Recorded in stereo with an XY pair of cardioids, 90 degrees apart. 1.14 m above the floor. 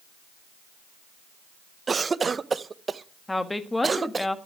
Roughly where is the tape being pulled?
No tape being pulled in this recording.